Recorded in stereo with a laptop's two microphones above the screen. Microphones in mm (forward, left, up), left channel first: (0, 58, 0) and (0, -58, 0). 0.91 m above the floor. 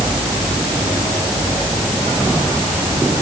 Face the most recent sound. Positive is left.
No sound to turn to.